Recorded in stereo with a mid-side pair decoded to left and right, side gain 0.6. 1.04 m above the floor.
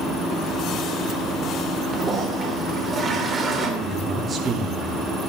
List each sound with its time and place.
1.9 s a toilet flushing: 25° right, 3 m
3.8 s a man speaking: 30° right, 3 m